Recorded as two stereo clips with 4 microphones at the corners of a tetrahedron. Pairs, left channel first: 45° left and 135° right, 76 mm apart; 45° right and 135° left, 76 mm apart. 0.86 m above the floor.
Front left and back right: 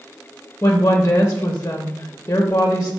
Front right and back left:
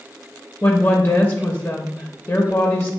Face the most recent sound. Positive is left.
turn(degrees=0)